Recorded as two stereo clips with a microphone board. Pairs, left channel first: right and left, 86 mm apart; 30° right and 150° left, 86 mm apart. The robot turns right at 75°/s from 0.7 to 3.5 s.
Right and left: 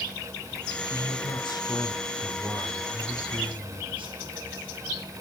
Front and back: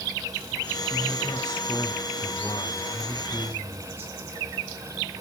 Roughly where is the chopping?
I don't hear chopping.